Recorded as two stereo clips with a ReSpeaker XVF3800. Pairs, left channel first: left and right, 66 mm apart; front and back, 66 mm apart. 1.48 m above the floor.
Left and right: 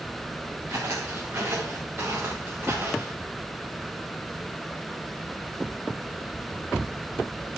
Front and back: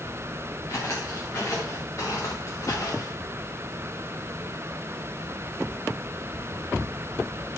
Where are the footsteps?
50° right, 6 m; by 3.1 s 35° right, 6.5 m.